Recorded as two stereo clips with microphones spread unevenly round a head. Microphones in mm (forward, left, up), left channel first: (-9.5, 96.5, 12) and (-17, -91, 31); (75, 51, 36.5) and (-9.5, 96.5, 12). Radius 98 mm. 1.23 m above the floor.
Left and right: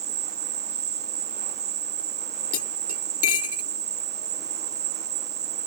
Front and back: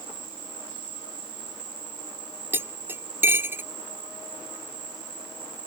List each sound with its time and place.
0.0 s an insect: 145° right
2.5 s cutlery clinking: 85° left